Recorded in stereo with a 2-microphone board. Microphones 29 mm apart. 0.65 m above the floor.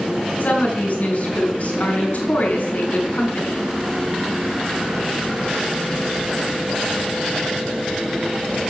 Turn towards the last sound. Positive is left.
turn(degrees=60)  # may be behind; listen again after turning